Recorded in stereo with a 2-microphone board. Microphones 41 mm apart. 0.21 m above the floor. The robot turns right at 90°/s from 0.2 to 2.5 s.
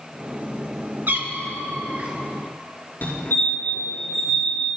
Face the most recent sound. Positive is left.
turn(degrees=55)  # may be behind; listen again after turning